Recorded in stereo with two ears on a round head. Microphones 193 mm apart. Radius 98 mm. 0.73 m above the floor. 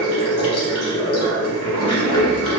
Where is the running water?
80° left, 0.8 m.